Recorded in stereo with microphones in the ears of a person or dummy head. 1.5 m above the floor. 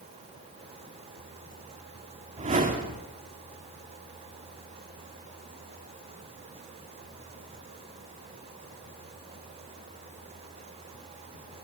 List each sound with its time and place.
2.4 s a whoosh: 35° right (ahead or behind), 2.5 m